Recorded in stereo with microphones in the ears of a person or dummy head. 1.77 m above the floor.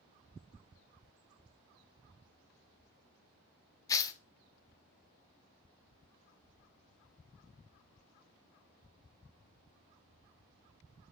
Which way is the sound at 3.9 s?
25° left (ahead or behind).